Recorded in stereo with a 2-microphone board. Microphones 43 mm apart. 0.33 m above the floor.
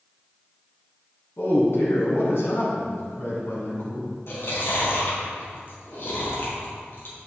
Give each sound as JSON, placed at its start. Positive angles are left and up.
{"t": 1.4, "sound": "a man speaking", "side_deg": 70, "distance_m": 3.0}
{"t": 4.3, "sound": "chewing", "side_deg": 60, "distance_m": 3.0}